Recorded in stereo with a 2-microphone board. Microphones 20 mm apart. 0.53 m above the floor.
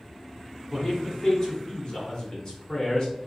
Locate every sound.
0.7 s a man speaking: 40° left (ahead or behind), 1.7 m